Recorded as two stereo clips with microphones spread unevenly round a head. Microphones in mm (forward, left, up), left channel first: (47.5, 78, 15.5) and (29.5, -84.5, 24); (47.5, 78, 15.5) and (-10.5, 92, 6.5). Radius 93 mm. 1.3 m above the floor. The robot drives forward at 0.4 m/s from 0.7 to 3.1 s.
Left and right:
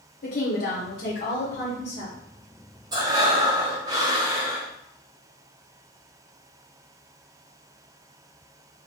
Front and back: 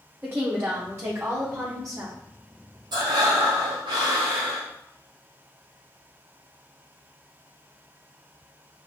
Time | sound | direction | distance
0.2 | a woman speaking | 110° left | 0.9 m
2.9 | breathing | 165° right | 0.6 m